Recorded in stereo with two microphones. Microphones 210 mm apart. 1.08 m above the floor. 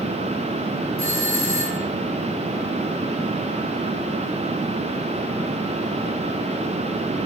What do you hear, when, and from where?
1.0 s a doorbell: 80° right, 4.5 m